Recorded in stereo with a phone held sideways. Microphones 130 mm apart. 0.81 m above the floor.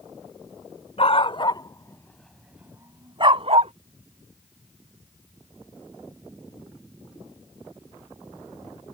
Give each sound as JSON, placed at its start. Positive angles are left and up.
{"t": 1.0, "sound": "a dog barking", "side_deg": 50}